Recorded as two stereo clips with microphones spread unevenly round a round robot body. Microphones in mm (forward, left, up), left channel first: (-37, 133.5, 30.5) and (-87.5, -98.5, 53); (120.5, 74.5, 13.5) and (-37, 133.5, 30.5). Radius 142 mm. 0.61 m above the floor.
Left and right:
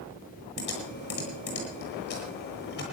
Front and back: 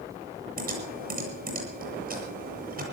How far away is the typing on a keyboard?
About 9 m.